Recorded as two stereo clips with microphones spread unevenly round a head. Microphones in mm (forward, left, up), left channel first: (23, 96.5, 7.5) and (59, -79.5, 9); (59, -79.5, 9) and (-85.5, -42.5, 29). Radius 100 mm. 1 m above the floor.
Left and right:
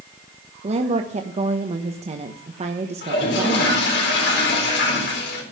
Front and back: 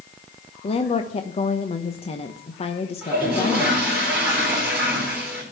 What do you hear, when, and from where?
0.6 s a woman speaking: 35° right, 1.1 m
3.0 s a toilet flushing: 80° left, 4 m